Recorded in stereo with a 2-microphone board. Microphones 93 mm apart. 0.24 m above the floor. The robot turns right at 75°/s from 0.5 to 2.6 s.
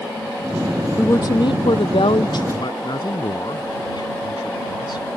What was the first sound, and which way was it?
A woman speaking, 25° left.